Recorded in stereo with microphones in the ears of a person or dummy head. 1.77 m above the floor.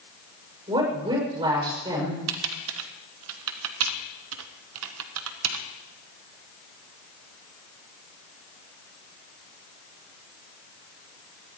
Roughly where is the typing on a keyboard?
Right.